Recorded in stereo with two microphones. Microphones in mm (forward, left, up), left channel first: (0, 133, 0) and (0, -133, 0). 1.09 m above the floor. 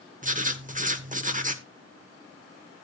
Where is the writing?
30° right (ahead or behind), 0.9 m.